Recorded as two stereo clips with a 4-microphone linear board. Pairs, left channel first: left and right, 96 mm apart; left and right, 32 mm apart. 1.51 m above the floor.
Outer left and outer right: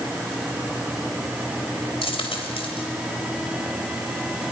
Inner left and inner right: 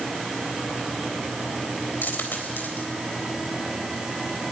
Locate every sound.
2.0 s a dropped coin: 70° left (ahead or behind), 3.5 m